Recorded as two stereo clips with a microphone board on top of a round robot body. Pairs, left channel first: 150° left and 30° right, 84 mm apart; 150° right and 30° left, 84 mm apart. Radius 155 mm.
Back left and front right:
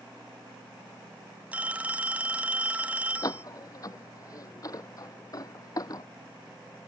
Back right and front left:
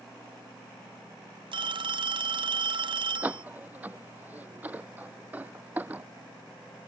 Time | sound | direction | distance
1.5 | a phone ringing | 45° left | ?
3.2 | a door slam | 100° left | ?